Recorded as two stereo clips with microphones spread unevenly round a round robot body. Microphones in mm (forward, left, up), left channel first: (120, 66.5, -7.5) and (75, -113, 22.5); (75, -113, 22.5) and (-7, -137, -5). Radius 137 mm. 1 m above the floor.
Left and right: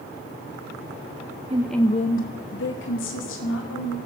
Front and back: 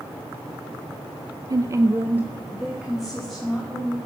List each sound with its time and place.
1.5 s a woman speaking: 170° right, 0.5 m; by 4.0 s 105° left, 3 m